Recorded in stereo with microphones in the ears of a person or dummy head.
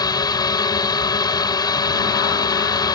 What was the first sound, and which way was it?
A drone, 20° left (ahead or behind).